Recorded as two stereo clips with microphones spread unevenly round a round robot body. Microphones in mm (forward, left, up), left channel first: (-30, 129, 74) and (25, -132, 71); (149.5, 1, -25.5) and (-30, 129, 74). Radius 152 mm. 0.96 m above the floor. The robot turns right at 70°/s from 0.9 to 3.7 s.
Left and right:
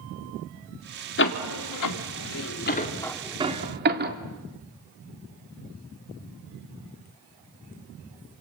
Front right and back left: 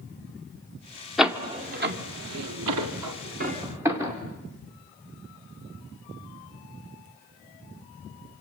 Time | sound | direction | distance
1.2 | a door slam | 50° left | 2 m